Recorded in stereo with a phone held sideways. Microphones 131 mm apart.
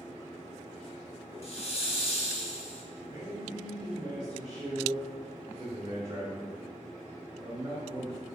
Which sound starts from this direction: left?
A hiss, at 1.4 s.